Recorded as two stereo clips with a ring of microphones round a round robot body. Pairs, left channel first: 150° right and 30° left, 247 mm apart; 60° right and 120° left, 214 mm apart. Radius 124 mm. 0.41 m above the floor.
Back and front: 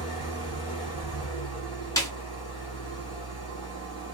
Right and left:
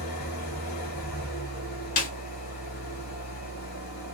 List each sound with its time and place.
0.0 s an engine running: 80° right, 1.7 m
2.0 s a snare drum: 80° right, 0.7 m